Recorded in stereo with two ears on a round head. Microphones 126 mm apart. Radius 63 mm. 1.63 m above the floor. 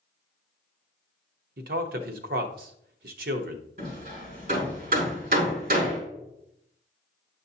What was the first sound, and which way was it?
A man speaking, 70° right (ahead or behind).